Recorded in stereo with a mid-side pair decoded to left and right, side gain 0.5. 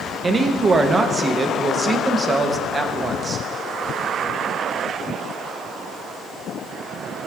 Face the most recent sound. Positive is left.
turn(degrees=-30)